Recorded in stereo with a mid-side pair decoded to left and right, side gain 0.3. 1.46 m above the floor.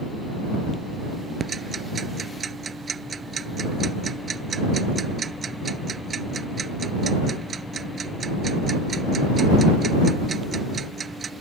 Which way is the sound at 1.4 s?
60° right.